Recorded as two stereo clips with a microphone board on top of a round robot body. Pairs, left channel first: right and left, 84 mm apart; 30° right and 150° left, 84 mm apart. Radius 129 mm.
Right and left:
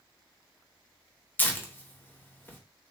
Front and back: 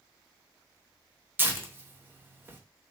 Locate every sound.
1.4 s tearing paper: 150° right, 0.9 m